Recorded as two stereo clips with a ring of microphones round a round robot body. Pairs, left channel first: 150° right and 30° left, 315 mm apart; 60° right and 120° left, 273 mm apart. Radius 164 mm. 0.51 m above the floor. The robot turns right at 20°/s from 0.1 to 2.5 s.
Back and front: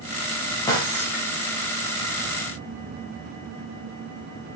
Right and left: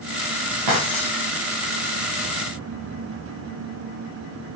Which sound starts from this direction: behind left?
Breaking glass, at 0.7 s.